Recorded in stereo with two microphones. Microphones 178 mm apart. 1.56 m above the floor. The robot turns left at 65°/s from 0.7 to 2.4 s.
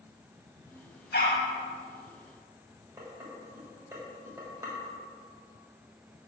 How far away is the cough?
I don't hear a cough.